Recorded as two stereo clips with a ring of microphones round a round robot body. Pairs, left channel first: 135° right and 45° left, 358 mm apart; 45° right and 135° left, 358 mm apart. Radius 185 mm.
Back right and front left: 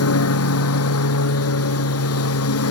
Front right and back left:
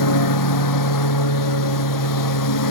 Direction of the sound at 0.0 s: 85° right.